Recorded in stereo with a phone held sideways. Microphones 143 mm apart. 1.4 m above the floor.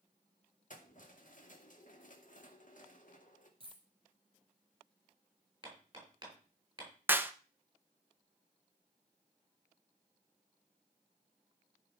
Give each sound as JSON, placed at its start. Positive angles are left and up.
{"t": 0.7, "sound": "keys jangling", "side_deg": 65, "distance_m": 1.8}
{"t": 3.6, "sound": "a dropped coin", "side_deg": -35, "distance_m": 3.5}
{"t": 5.6, "sound": "hammering", "side_deg": -30, "distance_m": 6.0}
{"t": 7.1, "sound": "a clap", "side_deg": -15, "distance_m": 0.8}